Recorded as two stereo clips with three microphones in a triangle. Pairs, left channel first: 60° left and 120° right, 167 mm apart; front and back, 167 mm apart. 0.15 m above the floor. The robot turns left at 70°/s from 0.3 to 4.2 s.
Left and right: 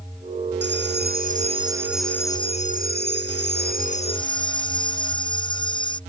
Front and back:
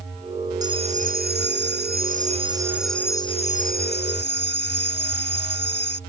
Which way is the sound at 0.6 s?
110° right.